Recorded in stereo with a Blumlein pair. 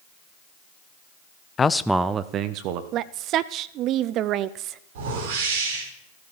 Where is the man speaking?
20° left, 0.7 m; by 2.8 s 45° right, 1.3 m.